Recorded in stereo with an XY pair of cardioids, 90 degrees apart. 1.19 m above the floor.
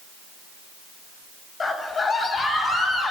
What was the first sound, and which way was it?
A scream, 40° left.